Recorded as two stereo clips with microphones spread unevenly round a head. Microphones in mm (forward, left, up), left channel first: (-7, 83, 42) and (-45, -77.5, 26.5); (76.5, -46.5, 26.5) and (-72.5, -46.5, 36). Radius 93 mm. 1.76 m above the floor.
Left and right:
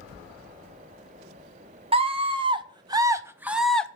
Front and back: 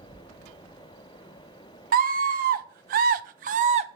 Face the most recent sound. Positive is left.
turn(degrees=150)